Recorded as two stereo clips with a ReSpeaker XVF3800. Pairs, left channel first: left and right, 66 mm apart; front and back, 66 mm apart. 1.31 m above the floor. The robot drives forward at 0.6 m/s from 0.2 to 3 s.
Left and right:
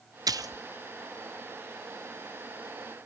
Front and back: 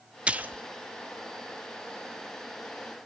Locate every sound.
0.3 s a splash: 105° right, 0.8 m; by 0.6 s 120° right, 0.9 m